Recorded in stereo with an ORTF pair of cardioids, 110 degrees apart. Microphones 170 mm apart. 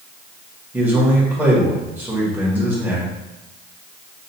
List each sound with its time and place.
0.7 s a man speaking: 10° right, 1.8 m